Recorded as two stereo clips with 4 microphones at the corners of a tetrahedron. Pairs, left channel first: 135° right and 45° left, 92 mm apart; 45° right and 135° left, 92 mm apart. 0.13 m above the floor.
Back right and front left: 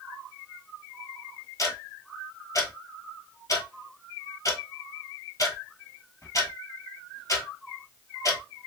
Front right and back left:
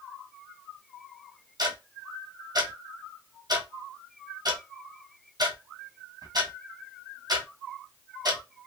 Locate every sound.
1.6 s ticking: 175° left, 1.1 m